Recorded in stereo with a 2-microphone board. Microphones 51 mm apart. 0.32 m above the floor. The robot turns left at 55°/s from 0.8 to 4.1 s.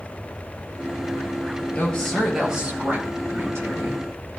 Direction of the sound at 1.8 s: 30° left.